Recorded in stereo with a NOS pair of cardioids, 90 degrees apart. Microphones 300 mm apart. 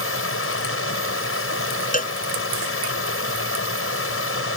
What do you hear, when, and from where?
0.0 s running water: 45° left
1.9 s a cowbell: 25° left